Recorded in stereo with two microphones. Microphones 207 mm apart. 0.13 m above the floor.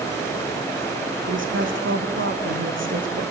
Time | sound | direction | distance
1.3 | a woman speaking | 80° right | 6 m